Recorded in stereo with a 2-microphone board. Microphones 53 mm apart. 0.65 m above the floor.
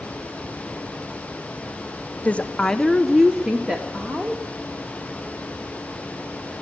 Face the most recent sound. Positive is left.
turn(degrees=-30)  # may be behind; listen again after turning